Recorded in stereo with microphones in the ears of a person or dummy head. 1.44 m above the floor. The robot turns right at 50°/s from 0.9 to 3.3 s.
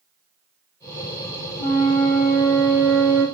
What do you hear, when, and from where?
1.6 s a flute: 140° left, 1.5 m; by 3.2 s 140° right, 1.5 m